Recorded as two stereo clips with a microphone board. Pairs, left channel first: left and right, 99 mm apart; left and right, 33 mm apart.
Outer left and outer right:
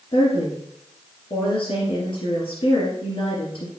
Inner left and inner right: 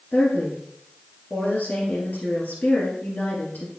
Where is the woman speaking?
45° left (ahead or behind), 2.5 m.